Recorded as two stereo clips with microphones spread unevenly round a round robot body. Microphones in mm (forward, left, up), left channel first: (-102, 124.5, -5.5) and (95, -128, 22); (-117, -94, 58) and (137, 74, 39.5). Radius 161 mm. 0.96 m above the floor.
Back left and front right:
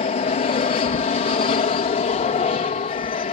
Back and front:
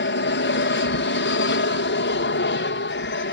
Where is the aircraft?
175° right.